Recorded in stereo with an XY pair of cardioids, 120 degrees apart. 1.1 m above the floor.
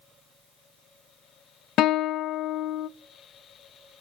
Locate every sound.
1.8 s a guitar: 65° left, 0.5 m